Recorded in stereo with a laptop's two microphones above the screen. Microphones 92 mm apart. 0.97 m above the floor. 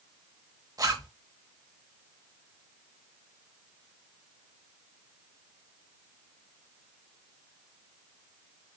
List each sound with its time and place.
0.8 s a zipper: 40° right (ahead or behind), 0.9 m